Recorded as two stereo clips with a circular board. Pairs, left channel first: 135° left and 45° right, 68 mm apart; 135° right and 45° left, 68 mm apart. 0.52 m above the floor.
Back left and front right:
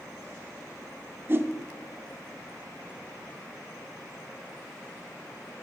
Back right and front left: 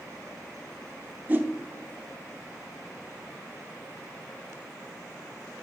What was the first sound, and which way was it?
A whoosh, 10° right.